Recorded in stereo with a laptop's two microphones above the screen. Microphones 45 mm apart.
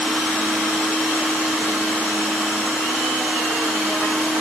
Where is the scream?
I don't hear a scream.